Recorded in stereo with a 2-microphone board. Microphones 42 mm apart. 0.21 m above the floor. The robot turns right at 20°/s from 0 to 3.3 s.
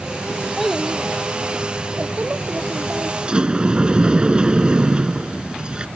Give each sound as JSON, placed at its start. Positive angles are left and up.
{"t": 0.6, "sound": "a child speaking", "azimuth_deg": 180}
{"t": 3.2, "sound": "a sliding door", "side_deg": -30}